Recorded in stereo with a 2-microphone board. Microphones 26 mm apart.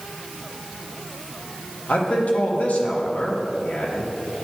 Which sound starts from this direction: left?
A man speaking, at 1.9 s.